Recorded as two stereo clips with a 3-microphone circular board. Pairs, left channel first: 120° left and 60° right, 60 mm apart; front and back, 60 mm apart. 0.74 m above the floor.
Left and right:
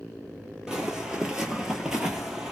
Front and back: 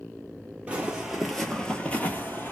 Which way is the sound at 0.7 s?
135° right.